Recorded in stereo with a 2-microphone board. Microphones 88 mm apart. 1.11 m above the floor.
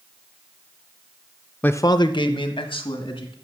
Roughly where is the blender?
I don't hear a blender.